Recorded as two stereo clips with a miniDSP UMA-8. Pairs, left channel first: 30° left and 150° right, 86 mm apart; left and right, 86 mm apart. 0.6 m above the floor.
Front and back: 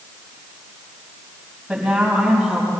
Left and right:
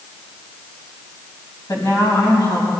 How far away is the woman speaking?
About 4 m.